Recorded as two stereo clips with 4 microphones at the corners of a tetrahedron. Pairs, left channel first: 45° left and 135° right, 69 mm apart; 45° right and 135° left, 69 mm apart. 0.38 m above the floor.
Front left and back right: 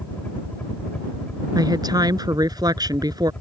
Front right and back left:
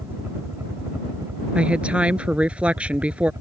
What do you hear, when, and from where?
0.0 s a helicopter: 100° left; by 3.4 s 110° left
1.6 s a woman speaking: 150° right